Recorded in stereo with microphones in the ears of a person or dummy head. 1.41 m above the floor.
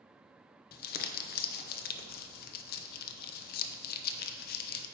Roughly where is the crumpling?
Left.